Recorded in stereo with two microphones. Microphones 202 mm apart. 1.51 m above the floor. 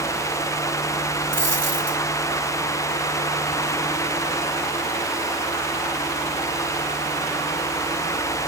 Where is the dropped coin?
60° right (ahead or behind), 3.5 m.